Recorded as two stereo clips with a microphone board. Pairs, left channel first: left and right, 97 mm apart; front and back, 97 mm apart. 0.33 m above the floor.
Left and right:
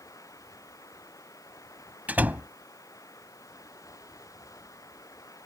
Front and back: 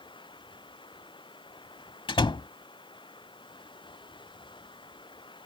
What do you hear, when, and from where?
0.0 s running water: 35° left
2.1 s a door slam: 20° right